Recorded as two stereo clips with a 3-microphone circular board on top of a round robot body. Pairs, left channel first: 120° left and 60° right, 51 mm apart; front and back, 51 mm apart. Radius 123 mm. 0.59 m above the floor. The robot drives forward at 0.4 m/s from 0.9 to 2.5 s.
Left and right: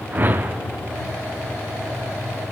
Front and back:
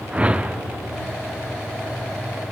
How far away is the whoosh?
About 0.7 m.